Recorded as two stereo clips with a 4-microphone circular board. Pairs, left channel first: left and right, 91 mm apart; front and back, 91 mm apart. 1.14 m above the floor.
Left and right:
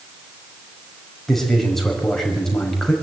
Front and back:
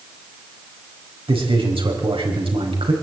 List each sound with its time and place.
1.3 s a man speaking: 175° left, 5 m